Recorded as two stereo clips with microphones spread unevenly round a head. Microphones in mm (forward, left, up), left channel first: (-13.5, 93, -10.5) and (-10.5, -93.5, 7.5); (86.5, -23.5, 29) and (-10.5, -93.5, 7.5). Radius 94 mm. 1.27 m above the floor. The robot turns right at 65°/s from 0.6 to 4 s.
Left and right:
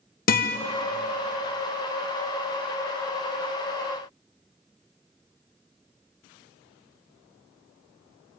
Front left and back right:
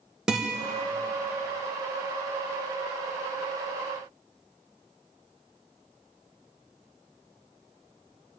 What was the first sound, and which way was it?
A guitar, 135° left.